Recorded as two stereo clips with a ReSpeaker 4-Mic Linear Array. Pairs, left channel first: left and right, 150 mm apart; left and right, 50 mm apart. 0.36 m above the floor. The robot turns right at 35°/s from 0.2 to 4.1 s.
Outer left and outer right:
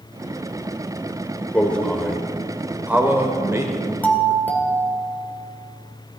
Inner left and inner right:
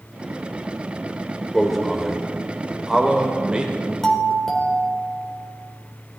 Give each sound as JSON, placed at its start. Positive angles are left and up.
{"t": 1.5, "sound": "a man speaking", "side_deg": 10, "distance_m": 1.2}
{"t": 4.0, "sound": "a doorbell", "side_deg": 10, "distance_m": 2.0}